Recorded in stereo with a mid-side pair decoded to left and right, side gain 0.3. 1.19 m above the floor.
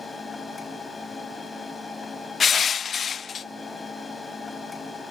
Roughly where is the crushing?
Ahead left.